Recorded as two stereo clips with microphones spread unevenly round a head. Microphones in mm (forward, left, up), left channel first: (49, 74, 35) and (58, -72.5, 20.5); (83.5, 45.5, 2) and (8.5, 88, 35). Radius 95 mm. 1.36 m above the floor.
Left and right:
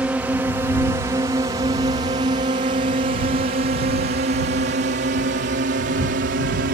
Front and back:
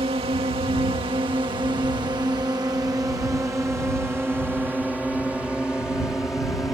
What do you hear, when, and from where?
0.0 s a drone: 165° right; by 6.8 s 110° right